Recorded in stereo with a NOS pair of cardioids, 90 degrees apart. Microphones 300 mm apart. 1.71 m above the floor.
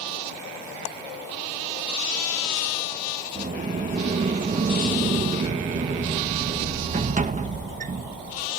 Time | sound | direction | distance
3.4 | a sliding door | 25° right | ?